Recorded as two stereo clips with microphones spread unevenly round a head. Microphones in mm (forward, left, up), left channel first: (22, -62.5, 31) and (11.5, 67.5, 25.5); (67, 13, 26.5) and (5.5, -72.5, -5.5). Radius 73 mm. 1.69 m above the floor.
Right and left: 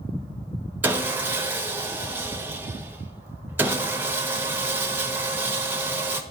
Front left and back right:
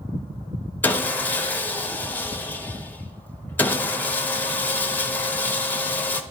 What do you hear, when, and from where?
0.8 s sawing: 25° left, 0.5 m